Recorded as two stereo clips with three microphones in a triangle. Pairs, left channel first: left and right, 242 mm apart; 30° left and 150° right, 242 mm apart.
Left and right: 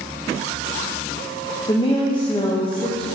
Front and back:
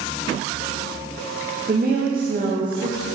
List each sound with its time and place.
1.7 s a woman speaking: 160° left, 0.8 m